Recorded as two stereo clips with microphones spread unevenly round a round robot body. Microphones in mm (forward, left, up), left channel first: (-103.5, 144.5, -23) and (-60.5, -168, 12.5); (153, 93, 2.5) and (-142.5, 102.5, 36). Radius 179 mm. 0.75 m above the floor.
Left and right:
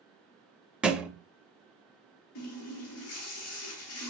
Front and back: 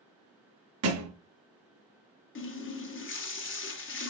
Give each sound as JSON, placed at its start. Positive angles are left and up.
{"t": 0.8, "sound": "a thud", "azimuth_deg": -165, "distance_m": 0.6}
{"t": 2.4, "sound": "a running tap", "azimuth_deg": 50, "distance_m": 0.8}